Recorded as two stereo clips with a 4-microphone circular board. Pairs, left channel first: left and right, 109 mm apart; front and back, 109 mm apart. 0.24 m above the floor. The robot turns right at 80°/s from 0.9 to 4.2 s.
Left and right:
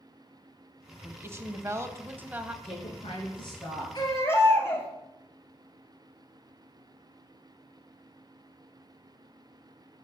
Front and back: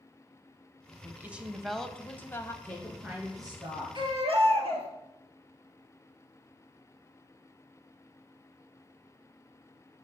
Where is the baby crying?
135° left, 2 m; by 4.9 s 155° left, 2 m.